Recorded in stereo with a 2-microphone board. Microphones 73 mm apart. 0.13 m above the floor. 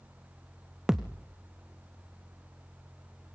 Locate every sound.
0.9 s a thud: 5° right (ahead or behind), 1.4 m